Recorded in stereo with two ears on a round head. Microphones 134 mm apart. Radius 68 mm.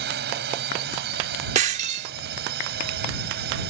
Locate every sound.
0.0 s a drone: 80° right
1.6 s breaking glass: 50° right (ahead or behind)